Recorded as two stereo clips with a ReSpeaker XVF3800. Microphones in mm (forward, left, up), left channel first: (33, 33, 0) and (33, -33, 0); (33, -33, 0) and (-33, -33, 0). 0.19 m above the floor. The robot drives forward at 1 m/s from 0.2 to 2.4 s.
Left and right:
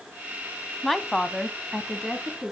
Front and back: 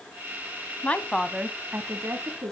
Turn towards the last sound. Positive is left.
turn(degrees=175)